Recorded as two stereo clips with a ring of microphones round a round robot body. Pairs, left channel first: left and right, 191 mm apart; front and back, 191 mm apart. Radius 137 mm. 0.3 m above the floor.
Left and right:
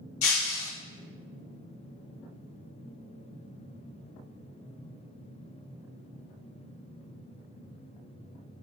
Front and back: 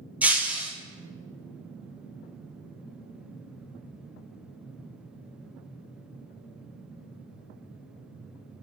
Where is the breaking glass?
95° left, 1.8 m.